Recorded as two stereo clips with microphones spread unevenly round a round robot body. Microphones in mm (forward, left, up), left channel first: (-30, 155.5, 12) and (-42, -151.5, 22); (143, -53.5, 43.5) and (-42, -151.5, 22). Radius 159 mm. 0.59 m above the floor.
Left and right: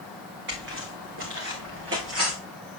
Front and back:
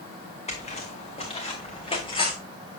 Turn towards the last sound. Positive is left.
turn(degrees=-40)